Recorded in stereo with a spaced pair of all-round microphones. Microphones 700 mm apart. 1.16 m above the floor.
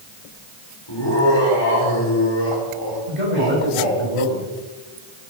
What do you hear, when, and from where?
0.9 s laughter: 35° left (ahead or behind), 4 m
3.1 s a man speaking: 80° right, 6 m